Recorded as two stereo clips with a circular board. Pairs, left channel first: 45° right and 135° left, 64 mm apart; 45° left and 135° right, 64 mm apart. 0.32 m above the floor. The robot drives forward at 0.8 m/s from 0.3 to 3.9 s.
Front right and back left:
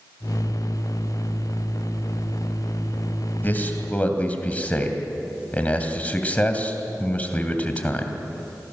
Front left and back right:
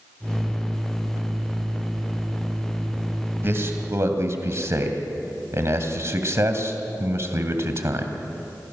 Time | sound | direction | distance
3.4 | a man speaking | 95° right | 2.5 m